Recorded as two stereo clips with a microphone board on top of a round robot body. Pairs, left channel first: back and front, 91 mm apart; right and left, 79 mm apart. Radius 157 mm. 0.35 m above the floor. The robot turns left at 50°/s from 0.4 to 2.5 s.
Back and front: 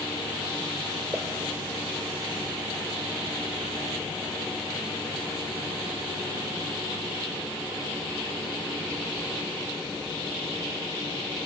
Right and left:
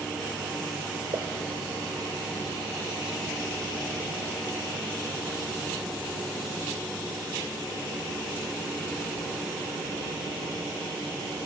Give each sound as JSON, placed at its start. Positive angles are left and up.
{"t": 1.1, "sound": "a pop", "azimuth_deg": 75, "distance_m": 1.1}